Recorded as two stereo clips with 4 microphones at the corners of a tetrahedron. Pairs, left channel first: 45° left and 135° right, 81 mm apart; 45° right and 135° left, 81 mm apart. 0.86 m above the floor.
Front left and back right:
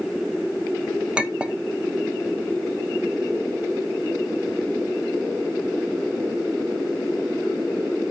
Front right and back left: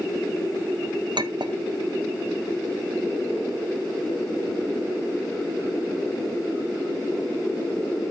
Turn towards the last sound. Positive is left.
turn(degrees=145)